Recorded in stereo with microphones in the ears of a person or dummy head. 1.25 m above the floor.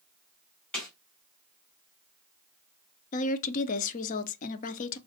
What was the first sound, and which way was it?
A snare drum, 5° left (ahead or behind).